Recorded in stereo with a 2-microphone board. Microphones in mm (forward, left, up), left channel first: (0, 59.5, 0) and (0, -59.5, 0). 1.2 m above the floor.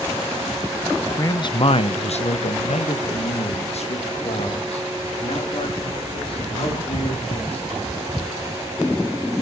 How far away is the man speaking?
About 0.6 m.